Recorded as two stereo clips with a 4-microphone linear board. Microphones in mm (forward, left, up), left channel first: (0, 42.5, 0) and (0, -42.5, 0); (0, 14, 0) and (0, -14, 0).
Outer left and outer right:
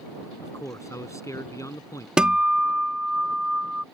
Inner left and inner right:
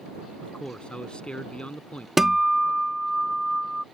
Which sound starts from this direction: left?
A man speaking, at 0.4 s.